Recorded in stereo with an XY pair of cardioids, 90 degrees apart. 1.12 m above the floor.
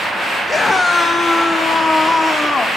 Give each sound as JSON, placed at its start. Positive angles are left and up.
{"t": 0.5, "sound": "a scream", "azimuth_deg": 35, "distance_m": 1.2}